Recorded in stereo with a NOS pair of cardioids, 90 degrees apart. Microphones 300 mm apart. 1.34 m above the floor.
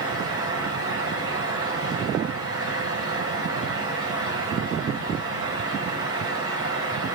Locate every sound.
0.0 s a fan: 50° right, 5.5 m